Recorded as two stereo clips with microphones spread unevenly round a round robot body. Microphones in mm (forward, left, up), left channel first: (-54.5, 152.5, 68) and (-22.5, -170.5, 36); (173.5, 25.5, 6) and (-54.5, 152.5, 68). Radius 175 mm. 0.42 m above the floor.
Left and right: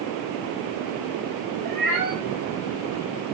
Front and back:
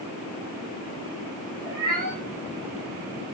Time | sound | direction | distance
1.6 | a cat meowing | 105° right | 6 m